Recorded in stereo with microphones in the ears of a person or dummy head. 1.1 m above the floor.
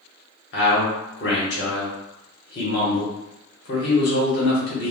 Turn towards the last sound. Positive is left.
turn(degrees=50)  # may be behind; listen again after turning